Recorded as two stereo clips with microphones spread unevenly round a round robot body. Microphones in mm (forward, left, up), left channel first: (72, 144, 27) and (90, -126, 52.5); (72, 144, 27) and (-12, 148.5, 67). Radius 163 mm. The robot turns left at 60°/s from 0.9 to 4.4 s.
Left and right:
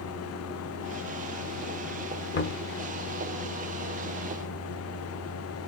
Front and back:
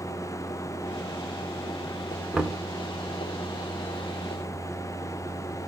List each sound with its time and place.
2.3 s knocking: 70° left, 1.3 m; by 2.7 s 50° left, 1.3 m